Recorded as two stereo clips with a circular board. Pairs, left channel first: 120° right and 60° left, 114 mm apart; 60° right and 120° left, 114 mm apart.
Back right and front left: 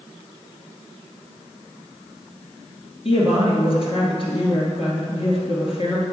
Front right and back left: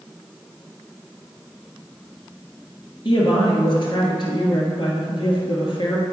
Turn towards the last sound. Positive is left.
turn(degrees=-100)